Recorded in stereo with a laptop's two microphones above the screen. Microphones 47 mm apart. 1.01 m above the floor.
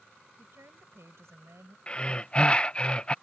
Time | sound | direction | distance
0.4 | a woman speaking | 80° right | ?
1.9 | breathing | 25° left (ahead or behind) | ?